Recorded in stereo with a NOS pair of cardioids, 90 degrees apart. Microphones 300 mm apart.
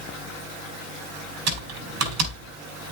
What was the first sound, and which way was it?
Typing on a keyboard, 60° right.